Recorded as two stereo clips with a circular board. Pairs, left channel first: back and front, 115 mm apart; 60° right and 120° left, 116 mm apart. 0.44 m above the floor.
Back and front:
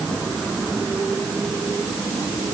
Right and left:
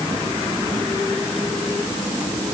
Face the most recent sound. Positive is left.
No sound to turn to.